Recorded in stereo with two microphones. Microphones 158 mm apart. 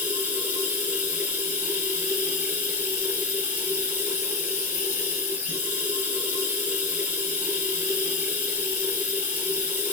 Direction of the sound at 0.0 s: 10° right (ahead or behind).